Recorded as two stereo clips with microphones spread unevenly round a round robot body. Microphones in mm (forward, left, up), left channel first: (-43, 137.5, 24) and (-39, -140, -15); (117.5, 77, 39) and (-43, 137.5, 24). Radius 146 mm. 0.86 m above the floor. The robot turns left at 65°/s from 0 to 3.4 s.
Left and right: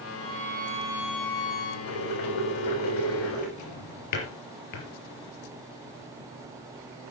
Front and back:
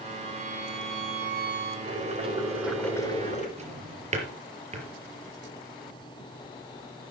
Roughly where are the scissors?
I don't hear scissors.